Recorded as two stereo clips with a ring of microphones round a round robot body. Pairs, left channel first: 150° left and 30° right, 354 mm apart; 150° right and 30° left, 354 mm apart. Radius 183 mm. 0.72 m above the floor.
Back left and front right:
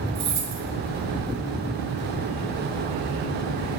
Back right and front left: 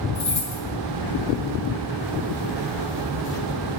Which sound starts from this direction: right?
Keys jangling, at 0.1 s.